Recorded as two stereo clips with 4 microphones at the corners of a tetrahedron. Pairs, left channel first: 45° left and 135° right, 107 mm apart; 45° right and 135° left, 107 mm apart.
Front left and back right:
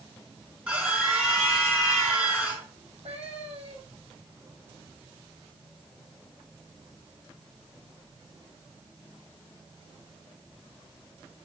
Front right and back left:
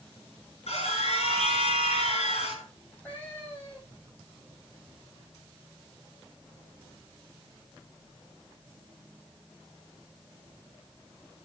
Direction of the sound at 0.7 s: 60° right.